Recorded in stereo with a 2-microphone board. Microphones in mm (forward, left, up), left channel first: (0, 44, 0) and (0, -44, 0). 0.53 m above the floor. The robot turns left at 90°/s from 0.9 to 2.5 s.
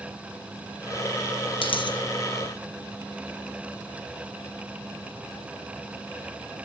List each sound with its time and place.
1.6 s a dropped coin: 90° left, 1.9 m; by 2.0 s 55° left, 1.9 m